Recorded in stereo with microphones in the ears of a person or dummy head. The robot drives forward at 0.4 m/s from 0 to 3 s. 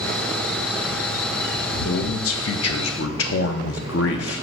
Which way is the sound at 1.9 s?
65° left (ahead or behind).